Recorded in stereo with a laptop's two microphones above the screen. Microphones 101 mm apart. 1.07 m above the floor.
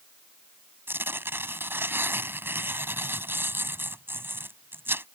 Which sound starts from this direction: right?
Tearing paper, at 0.9 s.